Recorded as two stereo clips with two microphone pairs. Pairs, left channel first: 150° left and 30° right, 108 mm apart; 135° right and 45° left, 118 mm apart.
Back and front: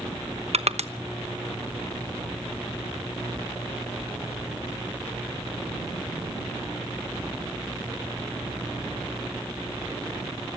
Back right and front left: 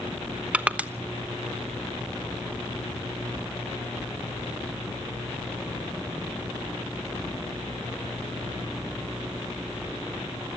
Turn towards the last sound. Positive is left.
turn(degrees=-35)